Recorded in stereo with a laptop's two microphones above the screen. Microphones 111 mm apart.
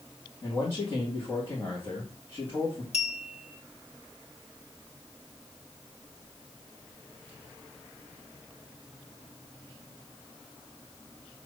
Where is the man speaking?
25° left (ahead or behind), 1.9 m.